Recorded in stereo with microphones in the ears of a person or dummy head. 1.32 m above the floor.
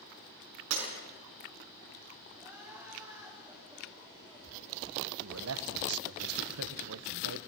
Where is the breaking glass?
80° right, 6 m.